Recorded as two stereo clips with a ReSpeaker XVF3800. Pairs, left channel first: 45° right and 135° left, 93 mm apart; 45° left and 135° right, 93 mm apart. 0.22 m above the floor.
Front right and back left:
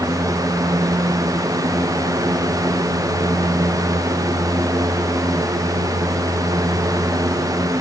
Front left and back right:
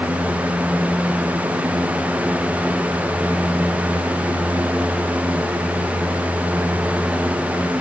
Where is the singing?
I don't hear singing.